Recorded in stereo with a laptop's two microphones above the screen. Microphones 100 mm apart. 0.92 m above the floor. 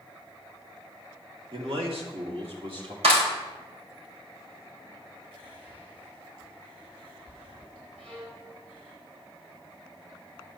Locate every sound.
1.5 s a man speaking: 65° right (ahead or behind), 2.5 m; by 2.9 s 70° right (ahead or behind), 3 m
3.0 s a clap: 85° right, 3.5 m
5.3 s whispering: 55° right (ahead or behind), 4 m
8.0 s a violin: 75° right (ahead or behind), 6 m